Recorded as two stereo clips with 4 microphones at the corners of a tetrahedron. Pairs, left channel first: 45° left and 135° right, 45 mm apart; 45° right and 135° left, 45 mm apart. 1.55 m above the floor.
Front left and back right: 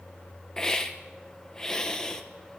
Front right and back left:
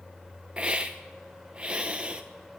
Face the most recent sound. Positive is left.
turn(degrees=100)